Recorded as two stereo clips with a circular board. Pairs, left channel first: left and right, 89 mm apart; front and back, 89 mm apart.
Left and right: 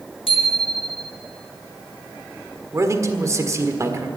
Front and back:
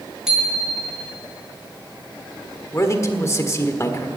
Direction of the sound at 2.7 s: 45° right.